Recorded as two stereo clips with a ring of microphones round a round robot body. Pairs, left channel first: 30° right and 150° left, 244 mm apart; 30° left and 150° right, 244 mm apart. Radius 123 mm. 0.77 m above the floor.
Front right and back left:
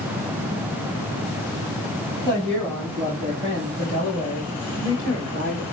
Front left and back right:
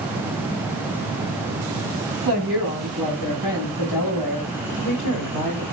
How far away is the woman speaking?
About 4.5 m.